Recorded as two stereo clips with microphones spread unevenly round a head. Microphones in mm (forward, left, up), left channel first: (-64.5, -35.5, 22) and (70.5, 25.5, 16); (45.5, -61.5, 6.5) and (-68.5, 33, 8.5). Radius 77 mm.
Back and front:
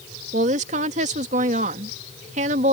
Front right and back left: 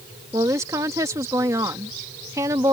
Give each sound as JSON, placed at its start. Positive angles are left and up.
{"t": 0.3, "sound": "a woman speaking", "azimuth_deg": 70}